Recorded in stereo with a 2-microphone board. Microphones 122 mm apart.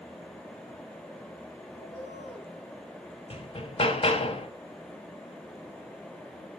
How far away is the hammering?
About 0.7 m.